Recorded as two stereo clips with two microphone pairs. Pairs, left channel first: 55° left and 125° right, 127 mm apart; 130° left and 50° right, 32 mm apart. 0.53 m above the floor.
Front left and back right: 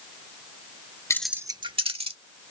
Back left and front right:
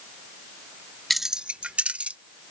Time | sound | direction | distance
1.1 | keys jangling | 40° left | ?